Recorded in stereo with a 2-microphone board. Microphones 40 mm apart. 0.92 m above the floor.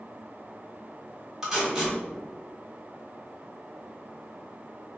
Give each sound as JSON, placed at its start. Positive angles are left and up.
{"t": 1.4, "sound": "tape being pulled", "side_deg": -10, "distance_m": 1.5}